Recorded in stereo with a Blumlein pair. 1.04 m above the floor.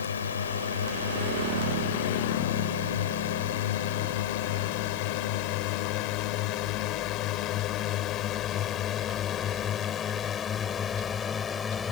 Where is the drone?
65° left; by 11.9 s 20° left.